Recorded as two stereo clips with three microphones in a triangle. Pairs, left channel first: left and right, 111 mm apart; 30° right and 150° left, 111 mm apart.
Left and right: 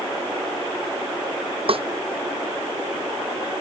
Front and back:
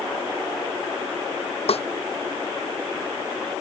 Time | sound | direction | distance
1.7 | a snare drum | 55° right | ?